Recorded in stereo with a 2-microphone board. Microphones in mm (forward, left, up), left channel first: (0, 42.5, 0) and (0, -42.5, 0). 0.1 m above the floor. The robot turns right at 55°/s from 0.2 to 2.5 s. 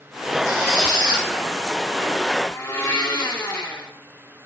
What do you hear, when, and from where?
0.5 s a squeak: 135° right, 2.5 m; by 1.3 s 90° right, 2.5 m
2.5 s a blender: 35° left (ahead or behind), 1.3 m; by 3.9 s 30° left (ahead or behind), 1.3 m